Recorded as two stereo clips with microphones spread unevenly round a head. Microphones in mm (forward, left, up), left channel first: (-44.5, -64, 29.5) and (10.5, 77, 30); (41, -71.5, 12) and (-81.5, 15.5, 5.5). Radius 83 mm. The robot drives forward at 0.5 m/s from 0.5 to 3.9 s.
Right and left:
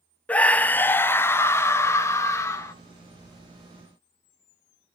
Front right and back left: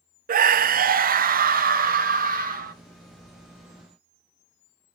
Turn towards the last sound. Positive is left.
turn(degrees=175)